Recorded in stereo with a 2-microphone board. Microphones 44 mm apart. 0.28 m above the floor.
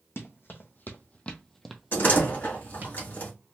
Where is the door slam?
50° left (ahead or behind), 1.6 m.